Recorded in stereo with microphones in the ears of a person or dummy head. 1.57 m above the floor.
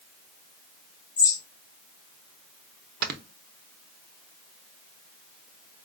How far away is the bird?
About 1.5 m.